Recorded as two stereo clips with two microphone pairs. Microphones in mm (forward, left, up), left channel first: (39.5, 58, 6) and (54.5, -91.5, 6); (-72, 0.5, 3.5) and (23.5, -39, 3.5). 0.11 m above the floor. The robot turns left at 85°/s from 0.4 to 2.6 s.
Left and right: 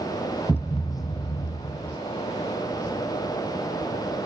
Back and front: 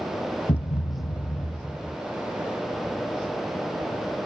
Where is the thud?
170° right; by 2.0 s 65° left.